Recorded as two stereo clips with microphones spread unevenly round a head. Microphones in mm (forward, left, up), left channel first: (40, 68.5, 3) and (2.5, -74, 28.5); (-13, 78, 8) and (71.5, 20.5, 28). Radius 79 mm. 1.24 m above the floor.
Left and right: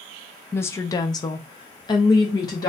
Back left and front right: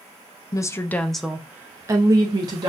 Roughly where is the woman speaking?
Behind left.